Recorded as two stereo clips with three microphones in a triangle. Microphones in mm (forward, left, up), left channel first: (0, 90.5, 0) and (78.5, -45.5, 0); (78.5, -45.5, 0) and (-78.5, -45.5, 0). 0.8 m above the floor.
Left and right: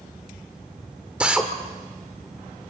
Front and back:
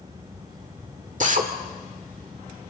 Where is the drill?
145° right, 1.8 m.